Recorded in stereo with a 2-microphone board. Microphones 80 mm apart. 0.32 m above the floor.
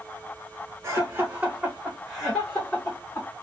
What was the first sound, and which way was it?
Laughter, 30° right (ahead or behind).